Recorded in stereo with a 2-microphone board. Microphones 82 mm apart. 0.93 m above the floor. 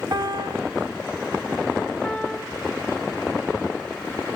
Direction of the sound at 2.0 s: 15° left (ahead or behind).